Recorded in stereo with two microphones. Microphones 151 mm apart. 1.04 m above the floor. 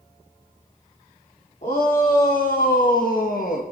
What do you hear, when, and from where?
1.6 s a shout: 55° left (ahead or behind), 3 m; by 3.6 s 65° left (ahead or behind), 1.2 m